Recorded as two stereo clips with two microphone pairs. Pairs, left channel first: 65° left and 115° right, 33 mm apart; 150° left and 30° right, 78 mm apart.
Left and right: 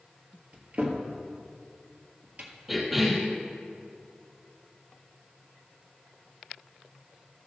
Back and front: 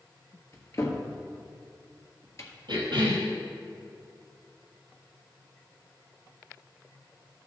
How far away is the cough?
About 4 m.